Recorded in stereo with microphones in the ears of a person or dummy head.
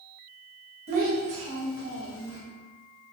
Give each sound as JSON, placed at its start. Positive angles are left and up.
{"t": 0.9, "sound": "a child speaking", "side_deg": -40, "distance_m": 0.8}